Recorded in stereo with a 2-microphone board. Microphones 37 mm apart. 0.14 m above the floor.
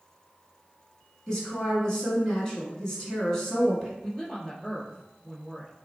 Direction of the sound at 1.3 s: 15° left (ahead or behind).